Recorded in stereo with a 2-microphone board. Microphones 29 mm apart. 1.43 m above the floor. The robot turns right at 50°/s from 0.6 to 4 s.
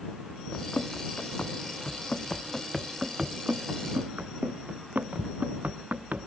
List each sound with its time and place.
0.5 s running footsteps: 40° left (ahead or behind); by 6.3 s 65° right (ahead or behind)